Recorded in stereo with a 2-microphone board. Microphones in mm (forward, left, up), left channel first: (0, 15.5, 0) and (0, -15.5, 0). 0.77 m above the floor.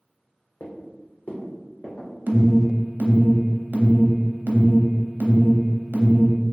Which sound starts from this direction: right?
An alarm, at 2.3 s.